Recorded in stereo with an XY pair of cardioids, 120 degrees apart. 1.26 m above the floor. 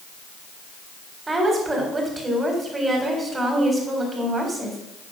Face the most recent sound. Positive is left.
turn(degrees=-20)